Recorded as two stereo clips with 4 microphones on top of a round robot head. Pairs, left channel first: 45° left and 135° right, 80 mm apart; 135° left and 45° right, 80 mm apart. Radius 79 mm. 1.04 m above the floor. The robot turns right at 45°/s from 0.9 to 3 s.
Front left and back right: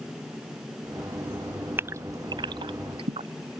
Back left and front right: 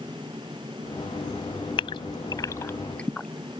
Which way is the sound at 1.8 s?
160° left.